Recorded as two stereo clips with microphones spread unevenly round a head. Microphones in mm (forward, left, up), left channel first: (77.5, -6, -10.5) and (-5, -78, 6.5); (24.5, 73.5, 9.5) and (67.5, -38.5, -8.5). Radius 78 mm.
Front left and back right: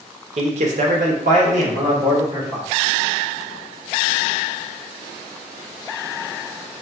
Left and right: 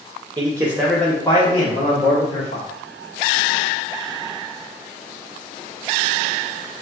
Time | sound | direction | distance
0.4 | a man speaking | 120° right | 0.7 m